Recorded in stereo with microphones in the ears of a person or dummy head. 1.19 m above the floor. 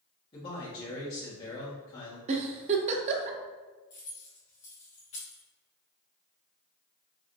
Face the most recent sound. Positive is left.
turn(degrees=35)  # may be behind; listen again after turning